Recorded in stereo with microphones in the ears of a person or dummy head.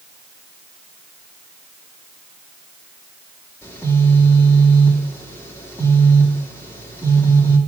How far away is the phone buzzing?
About 3 m.